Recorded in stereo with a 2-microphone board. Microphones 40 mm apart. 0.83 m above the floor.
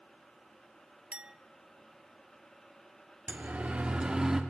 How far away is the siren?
About 3 m.